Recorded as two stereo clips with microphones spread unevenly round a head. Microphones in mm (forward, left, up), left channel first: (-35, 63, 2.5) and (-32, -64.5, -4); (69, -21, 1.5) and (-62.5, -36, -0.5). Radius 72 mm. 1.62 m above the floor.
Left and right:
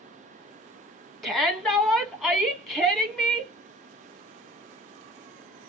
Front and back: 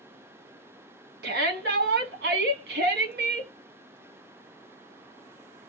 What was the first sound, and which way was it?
A shout, straight behind.